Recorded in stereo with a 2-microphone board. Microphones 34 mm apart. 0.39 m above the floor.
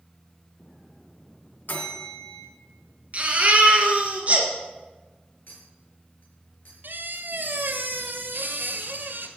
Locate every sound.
1.7 s a bell: 75° left (ahead or behind), 2.5 m
3.1 s a baby crying: 40° right (ahead or behind), 2.5 m
5.5 s a clink: 80° left, 4.5 m
6.8 s a squeak: 80° right, 1.5 m